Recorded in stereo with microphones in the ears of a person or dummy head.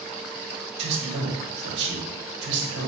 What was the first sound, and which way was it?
A man speaking, 60° right (ahead or behind).